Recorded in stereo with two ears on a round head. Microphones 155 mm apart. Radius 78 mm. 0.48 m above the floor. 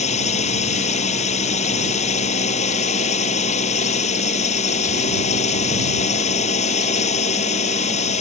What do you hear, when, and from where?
0.0 s a drone: 40° left (ahead or behind)